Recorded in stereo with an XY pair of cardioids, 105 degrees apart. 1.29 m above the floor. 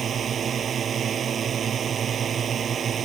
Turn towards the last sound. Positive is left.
turn(degrees=-50)